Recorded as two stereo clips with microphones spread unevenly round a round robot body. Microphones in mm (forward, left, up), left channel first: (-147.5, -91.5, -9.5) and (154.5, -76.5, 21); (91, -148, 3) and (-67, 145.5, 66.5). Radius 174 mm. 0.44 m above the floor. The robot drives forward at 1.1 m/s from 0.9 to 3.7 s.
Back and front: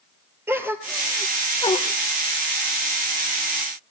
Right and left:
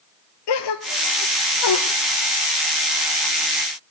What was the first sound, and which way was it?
A gasp, 80° right.